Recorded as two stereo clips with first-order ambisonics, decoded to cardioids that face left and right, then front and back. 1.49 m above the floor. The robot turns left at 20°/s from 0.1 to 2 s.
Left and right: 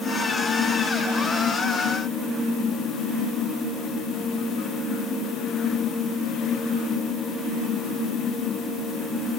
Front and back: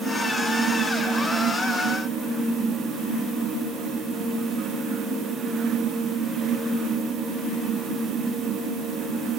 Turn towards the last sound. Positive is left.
No sound to turn to.